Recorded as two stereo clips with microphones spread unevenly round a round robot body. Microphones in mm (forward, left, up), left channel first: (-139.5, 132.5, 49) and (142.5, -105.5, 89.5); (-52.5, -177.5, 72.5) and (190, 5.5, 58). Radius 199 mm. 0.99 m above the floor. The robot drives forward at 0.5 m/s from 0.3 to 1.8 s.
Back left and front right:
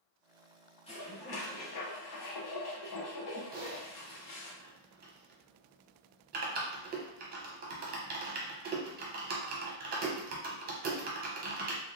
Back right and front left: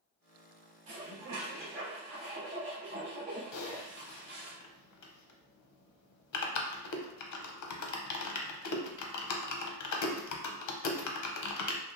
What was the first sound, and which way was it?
Dishes clattering, 65° left.